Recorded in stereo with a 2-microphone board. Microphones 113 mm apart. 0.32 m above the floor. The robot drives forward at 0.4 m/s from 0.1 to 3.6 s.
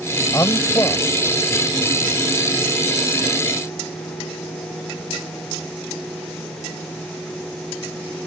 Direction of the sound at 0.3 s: 30° left (ahead or behind).